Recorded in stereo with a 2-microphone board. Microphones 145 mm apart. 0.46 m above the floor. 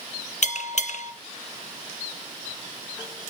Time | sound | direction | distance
0.4 | a bell | 55° left (ahead or behind) | 0.5 m